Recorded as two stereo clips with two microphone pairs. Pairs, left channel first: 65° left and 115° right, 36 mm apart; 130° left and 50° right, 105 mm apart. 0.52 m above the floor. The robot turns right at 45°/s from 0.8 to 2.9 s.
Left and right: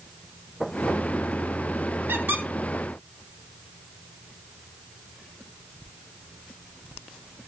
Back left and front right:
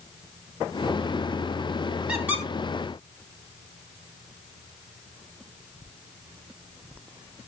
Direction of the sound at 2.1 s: 130° right.